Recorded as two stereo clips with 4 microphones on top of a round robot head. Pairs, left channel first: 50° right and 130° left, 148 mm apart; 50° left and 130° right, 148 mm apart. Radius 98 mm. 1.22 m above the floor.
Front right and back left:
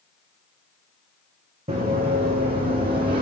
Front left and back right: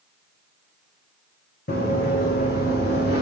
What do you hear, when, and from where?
1.7 s running footsteps: 80° left, 3.5 m; by 3.2 s 75° left, 3 m